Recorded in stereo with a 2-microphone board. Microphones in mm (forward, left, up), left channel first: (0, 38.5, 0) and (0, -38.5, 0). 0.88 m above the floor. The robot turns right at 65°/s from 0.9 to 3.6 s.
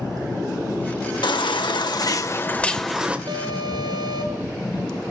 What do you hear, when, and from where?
1.2 s a baby crying: 70° left, 1.8 m; by 3.2 s 160° right, 1.8 m
3.3 s an alarm: 75° right (ahead or behind), 4 m; by 4.5 s 85° right, 4 m